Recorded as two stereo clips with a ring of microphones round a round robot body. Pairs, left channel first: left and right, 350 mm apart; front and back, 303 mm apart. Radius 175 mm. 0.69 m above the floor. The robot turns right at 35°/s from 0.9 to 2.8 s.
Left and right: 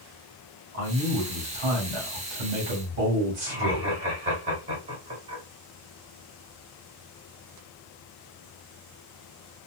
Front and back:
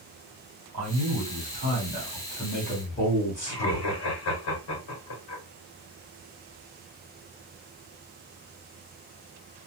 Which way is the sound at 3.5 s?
25° right.